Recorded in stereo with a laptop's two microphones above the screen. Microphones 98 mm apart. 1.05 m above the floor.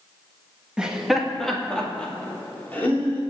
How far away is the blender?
No blender in this recording.